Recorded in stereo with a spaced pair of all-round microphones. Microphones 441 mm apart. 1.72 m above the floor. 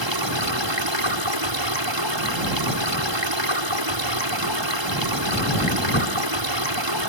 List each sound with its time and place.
0.0 s running water: 75° right (ahead or behind)